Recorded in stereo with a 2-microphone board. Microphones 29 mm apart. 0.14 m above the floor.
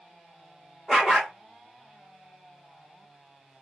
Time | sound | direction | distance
0.9 | a dog barking | 10° left (ahead or behind) | 2 m